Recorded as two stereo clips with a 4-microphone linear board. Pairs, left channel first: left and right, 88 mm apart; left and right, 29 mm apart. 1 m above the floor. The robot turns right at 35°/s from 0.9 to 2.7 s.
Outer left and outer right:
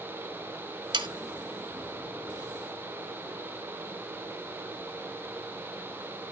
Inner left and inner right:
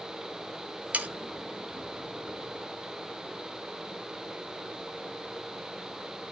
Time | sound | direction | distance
0.9 | sawing | 60° right (ahead or behind) | 1.3 m